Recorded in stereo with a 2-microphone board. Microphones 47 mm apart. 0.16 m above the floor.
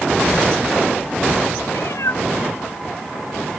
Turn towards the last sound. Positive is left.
turn(degrees=85)